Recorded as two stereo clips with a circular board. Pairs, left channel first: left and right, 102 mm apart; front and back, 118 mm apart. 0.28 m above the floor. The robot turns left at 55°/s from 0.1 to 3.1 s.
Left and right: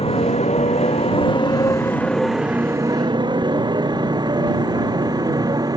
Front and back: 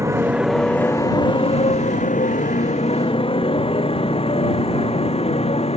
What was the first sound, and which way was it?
A motorcycle, 115° left.